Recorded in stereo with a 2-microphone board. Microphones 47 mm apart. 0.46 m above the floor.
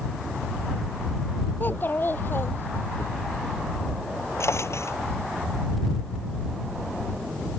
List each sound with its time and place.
1.6 s a child speaking: 45° left (ahead or behind); by 3.0 s 55° left (ahead or behind)
4.4 s a drawer: 75° left (ahead or behind)